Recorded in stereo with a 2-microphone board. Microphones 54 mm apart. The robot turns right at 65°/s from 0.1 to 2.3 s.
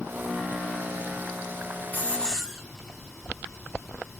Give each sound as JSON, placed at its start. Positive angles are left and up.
{"t": 1.9, "sound": "a hiss", "side_deg": 35, "distance_m": 2.5}